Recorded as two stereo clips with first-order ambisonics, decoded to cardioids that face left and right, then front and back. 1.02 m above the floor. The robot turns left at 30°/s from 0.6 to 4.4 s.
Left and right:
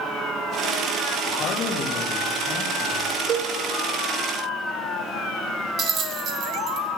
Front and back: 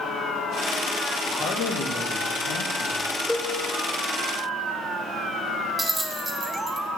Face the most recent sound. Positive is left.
turn(degrees=-105)